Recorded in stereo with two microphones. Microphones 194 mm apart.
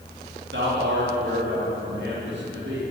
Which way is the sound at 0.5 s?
90° right.